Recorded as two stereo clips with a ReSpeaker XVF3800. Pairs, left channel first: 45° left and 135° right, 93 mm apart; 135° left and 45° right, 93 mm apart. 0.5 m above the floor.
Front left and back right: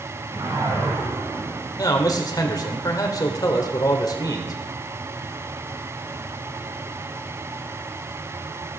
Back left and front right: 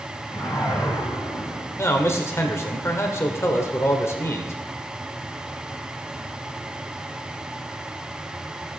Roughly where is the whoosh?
Behind.